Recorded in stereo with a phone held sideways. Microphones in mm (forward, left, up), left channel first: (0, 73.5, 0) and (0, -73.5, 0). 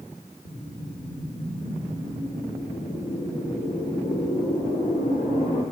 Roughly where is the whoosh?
Left.